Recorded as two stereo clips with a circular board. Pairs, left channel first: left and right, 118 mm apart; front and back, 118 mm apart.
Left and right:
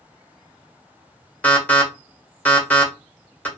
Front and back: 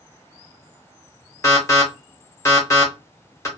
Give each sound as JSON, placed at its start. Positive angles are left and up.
{"t": 1.4, "sound": "an alarm", "azimuth_deg": 25, "distance_m": 1.2}